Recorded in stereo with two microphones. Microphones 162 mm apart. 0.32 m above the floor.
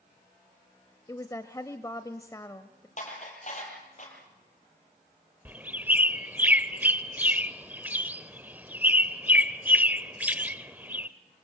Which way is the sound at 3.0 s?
50° left (ahead or behind).